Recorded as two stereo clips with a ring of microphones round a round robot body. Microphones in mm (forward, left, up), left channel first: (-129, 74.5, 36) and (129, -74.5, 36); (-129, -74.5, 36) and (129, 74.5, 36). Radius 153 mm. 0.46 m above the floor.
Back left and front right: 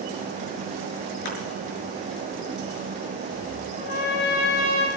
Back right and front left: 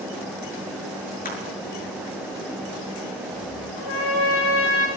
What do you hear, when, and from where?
1.2 s crushing: 145° left, 6.5 m
3.8 s a trumpet: 160° left, 7.5 m